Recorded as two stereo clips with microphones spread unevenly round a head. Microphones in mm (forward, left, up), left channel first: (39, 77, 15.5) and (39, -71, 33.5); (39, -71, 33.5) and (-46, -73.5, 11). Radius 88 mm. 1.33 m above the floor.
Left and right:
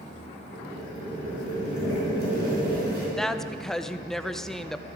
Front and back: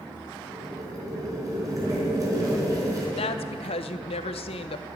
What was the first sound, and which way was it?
Boiling, 125° right.